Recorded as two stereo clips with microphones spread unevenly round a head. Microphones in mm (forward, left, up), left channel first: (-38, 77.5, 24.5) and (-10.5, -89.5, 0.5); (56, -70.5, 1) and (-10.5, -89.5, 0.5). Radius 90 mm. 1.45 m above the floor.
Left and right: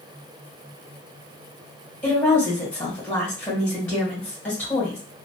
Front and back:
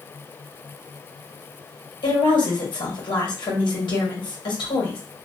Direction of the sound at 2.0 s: 15° left.